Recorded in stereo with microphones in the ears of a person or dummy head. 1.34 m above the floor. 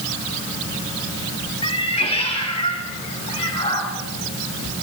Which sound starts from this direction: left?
A cat meowing, at 1.6 s.